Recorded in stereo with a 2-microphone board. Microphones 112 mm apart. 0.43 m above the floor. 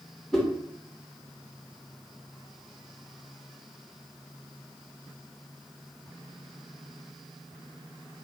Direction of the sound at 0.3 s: 5° left (ahead or behind).